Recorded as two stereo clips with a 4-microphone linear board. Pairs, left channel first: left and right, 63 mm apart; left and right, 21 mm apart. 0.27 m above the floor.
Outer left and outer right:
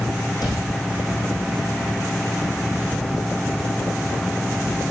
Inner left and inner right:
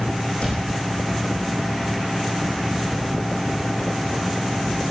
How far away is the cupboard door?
About 9.5 m.